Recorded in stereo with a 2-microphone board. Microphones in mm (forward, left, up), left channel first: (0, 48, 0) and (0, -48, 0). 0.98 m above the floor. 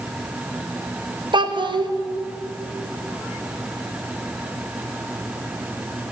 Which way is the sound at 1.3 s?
50° right (ahead or behind).